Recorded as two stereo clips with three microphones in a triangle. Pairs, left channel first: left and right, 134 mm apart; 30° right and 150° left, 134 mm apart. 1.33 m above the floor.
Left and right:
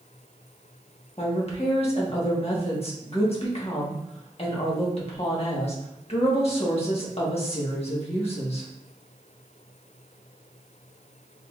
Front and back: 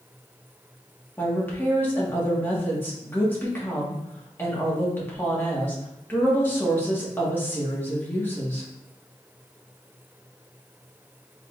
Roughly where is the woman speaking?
Ahead left.